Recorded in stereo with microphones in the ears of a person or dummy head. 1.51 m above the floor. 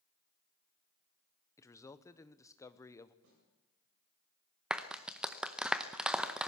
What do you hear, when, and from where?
1.6 s a man speaking: 15° left (ahead or behind), 1.0 m
3.2 s a snare drum: 80° right, 8 m
4.7 s a clap: centre (ahead or behind), 0.8 m